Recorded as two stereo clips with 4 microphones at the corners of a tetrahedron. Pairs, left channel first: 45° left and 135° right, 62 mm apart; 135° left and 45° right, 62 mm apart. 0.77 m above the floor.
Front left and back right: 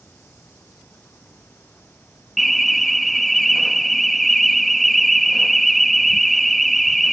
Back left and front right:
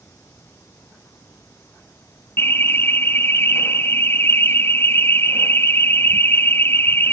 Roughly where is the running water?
Left.